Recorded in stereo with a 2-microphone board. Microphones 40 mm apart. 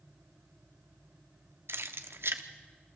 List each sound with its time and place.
1.7 s keys jangling: 70° right (ahead or behind), 1.0 m